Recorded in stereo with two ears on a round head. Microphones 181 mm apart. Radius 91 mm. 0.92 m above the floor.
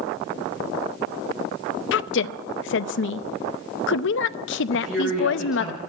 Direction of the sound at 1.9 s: 65° left (ahead or behind).